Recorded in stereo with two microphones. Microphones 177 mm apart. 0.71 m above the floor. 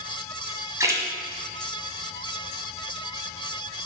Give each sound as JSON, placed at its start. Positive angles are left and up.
{"t": 0.8, "sound": "a splash", "side_deg": -20, "distance_m": 1.3}